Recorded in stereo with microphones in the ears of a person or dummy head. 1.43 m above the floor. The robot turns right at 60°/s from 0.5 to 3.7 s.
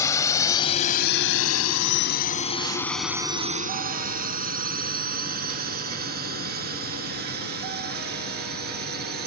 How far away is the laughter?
No laughter in this recording.